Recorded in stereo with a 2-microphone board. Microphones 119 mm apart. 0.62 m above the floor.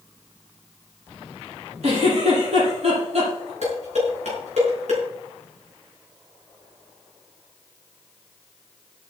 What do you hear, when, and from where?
1.8 s a giggle: 65° right (ahead or behind), 7.5 m
3.6 s dishes clattering: 70° right (ahead or behind), 5.5 m